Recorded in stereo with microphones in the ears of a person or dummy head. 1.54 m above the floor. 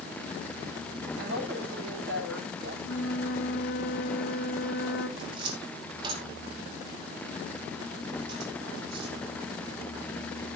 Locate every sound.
1.2 s a woman speaking: 85° right, 8 m
2.8 s a flute: 70° left (ahead or behind), 1.9 m
5.2 s a cupboard door: 25° right (ahead or behind), 2.5 m